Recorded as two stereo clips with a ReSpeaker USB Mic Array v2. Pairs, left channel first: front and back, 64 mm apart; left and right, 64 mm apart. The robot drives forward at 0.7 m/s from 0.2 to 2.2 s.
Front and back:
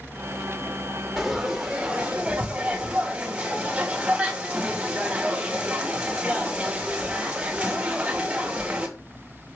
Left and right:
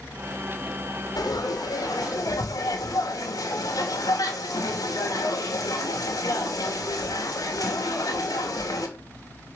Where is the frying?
95° left, 2.5 m; by 8.9 s 110° left, 3 m.